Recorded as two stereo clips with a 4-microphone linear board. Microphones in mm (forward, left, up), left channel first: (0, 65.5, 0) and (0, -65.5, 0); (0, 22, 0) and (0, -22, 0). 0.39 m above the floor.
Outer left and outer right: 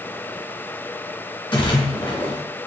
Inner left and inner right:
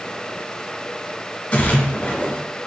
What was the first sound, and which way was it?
A splash, 35° left (ahead or behind).